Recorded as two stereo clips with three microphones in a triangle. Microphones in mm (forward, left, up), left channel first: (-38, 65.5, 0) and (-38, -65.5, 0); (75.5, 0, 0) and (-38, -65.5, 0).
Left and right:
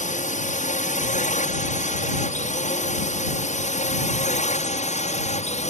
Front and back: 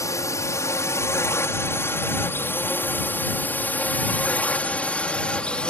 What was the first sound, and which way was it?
A drone, 95° left.